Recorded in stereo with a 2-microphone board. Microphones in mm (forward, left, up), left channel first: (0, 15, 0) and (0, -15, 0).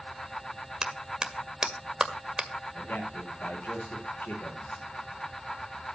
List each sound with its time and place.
0.8 s a clap: 20° right (ahead or behind), 2.0 m
2.7 s a man speaking: 85° left, 8 m